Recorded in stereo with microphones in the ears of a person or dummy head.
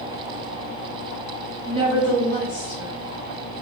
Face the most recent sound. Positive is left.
turn(degrees=15)  # may be behind; listen again after turning